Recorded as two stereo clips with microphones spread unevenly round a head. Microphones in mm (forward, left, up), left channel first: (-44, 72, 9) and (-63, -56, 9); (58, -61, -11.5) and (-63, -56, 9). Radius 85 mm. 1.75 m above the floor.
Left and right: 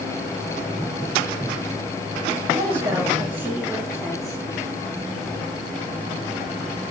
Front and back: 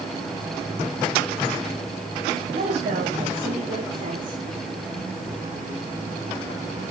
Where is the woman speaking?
165° right, 4 m; by 4.4 s 175° left, 5 m.